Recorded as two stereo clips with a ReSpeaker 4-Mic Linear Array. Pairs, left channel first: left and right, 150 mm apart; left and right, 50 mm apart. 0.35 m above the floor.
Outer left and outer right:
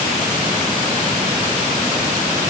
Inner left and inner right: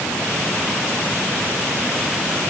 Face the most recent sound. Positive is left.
No sound to turn to.